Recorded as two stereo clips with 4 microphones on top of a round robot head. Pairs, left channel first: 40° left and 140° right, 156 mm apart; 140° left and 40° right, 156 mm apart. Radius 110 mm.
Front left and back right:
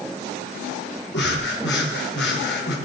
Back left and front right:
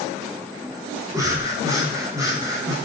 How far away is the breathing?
About 5.5 m.